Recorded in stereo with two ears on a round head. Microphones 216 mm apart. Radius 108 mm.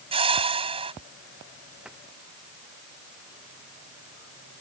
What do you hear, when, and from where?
0.1 s a whoosh: 25° right (ahead or behind)
1.9 s a cupboard door: 5° right (ahead or behind)